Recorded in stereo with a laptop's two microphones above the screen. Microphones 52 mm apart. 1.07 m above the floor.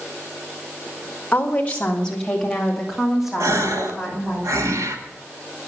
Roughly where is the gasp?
Right.